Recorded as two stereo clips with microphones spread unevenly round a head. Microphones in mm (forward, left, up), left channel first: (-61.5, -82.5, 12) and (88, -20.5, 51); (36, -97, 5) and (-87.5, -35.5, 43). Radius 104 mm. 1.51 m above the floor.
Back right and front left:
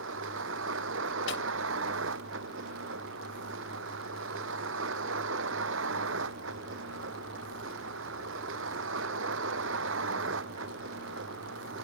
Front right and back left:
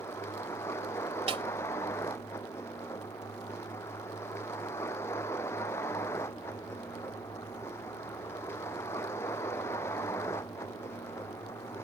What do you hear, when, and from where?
0.0 s a vehicle: 50° left
1.3 s a snare drum: 165° right